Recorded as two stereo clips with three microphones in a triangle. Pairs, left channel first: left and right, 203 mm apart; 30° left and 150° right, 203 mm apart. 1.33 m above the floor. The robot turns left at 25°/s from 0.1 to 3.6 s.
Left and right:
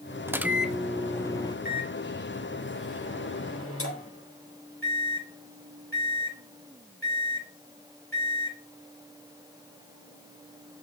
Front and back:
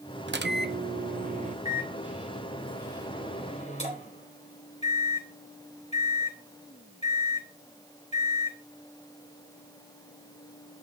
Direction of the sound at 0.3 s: 170° right.